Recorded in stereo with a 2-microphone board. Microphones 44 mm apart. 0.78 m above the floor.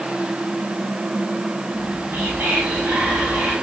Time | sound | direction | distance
1.7 | whispering | 70° right (ahead or behind) | 3.5 m